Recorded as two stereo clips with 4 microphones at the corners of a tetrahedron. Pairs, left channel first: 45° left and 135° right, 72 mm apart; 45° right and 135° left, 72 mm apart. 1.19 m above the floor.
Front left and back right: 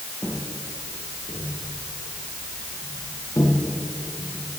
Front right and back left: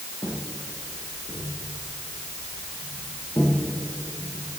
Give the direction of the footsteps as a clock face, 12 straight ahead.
1 o'clock.